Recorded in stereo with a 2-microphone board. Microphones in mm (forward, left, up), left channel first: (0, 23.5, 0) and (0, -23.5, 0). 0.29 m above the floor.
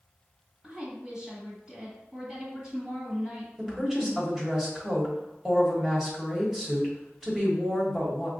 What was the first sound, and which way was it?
A woman speaking, 20° right (ahead or behind).